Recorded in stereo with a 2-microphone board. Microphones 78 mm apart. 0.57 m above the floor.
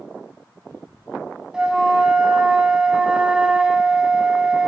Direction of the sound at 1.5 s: 10° right (ahead or behind).